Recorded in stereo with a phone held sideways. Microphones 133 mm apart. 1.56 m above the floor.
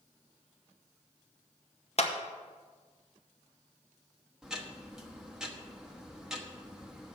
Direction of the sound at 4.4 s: 5° right (ahead or behind).